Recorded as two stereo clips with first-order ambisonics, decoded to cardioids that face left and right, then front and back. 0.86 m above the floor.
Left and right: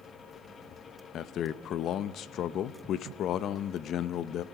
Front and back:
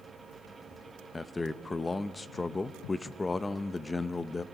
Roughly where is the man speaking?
Left.